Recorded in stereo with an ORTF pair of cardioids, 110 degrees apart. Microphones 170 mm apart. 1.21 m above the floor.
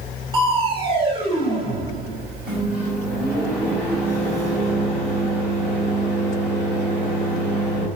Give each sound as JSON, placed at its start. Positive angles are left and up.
{"t": 0.3, "sound": "crushing", "azimuth_deg": -30, "distance_m": 2.0}
{"t": 2.5, "sound": "a microwave", "azimuth_deg": -5, "distance_m": 5.0}